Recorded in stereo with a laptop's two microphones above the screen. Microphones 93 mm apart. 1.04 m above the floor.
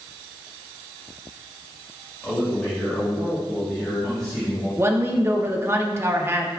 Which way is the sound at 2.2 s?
15° left (ahead or behind).